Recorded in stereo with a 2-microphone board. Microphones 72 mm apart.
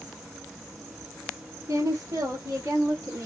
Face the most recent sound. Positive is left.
turn(degrees=-50)  # may be behind; listen again after turning